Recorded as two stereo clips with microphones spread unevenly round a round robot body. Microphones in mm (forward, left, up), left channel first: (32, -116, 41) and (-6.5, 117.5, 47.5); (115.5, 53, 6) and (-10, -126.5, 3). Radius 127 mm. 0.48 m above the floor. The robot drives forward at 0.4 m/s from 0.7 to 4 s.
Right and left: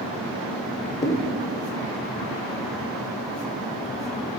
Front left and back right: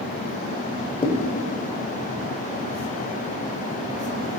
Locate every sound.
1.0 s a thud: 15° right, 0.8 m